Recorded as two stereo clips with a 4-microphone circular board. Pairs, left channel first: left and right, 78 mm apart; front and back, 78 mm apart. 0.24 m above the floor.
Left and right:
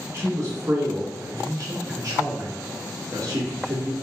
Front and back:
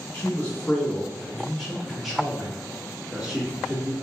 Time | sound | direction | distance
0.1 | a man speaking | 60° right | 1.9 m